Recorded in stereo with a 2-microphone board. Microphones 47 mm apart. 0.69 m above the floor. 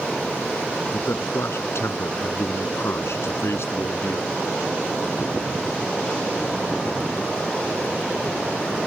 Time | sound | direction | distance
0.9 | a man speaking | 70° left (ahead or behind) | ?